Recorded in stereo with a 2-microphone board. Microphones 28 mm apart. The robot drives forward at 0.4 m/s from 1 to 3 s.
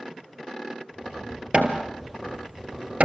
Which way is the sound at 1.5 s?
45° right (ahead or behind).